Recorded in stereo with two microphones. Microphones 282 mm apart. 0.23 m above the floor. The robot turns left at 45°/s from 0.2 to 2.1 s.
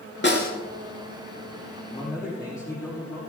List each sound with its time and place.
0.2 s a snare drum: 40° left (ahead or behind), 3 m; by 0.5 s 30° left (ahead or behind), 3 m
1.9 s a man speaking: 20° left (ahead or behind), 7 m; by 3.2 s 10° left (ahead or behind), 7 m